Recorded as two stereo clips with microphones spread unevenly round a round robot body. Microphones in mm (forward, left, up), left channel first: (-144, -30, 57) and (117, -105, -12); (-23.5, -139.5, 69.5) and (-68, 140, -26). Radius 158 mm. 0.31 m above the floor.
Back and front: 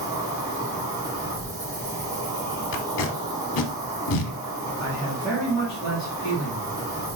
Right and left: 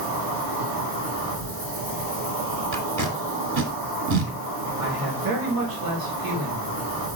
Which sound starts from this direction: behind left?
Tape being pulled, at 2.7 s.